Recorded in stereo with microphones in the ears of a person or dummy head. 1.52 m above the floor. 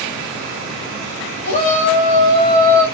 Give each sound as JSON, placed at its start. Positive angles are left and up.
{"t": 1.4, "sound": "a shout", "side_deg": 45, "distance_m": 1.3}